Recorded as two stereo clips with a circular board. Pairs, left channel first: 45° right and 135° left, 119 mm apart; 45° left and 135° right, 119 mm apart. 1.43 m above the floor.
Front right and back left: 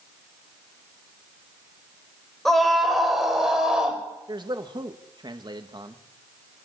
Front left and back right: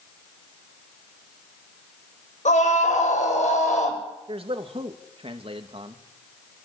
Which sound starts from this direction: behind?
A man speaking, at 4.3 s.